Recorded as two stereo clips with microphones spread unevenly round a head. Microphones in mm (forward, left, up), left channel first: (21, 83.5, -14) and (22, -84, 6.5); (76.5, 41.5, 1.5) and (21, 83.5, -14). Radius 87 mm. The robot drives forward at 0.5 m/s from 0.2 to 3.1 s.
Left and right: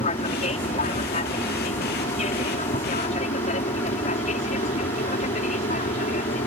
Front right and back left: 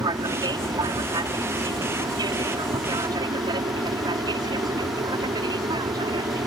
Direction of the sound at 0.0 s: 140° left.